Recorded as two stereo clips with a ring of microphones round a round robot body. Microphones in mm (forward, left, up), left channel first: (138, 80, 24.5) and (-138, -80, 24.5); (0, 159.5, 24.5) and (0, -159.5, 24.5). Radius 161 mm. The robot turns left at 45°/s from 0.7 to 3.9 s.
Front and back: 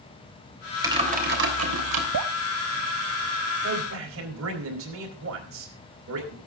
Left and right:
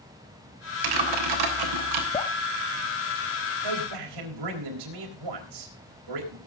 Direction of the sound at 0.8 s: 70° right.